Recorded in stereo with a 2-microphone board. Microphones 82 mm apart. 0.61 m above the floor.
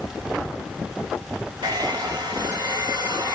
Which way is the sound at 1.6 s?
65° right (ahead or behind).